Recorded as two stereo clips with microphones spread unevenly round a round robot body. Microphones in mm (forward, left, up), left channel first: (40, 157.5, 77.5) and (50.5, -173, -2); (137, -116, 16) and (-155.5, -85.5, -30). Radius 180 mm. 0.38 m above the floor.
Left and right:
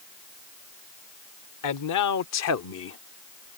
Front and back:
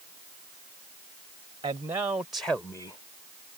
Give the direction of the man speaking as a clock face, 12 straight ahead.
8 o'clock.